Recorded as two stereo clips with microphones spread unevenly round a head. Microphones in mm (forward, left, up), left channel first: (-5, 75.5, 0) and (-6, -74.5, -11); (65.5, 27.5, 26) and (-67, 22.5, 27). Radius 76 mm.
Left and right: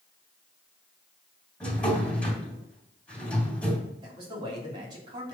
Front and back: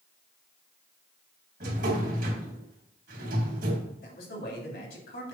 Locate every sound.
1.6 s a drawer: 170° left, 2.5 m
4.0 s a man speaking: 25° right, 3 m